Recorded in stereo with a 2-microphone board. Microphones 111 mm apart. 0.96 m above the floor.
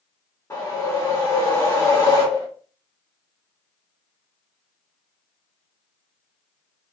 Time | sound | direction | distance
0.5 | a whoosh | 25° left (ahead or behind) | 1.1 m